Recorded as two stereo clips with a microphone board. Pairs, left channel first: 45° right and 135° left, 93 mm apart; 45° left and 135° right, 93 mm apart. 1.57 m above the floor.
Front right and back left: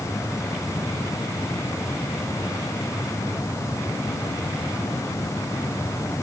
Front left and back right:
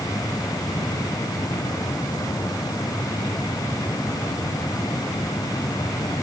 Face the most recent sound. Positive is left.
No sound to turn to.